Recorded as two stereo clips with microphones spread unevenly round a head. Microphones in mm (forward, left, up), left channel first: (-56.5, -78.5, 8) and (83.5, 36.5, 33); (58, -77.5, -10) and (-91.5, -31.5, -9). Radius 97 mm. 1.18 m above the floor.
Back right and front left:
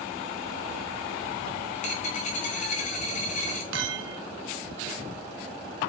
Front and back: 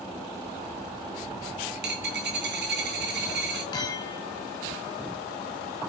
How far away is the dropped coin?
About 3 m.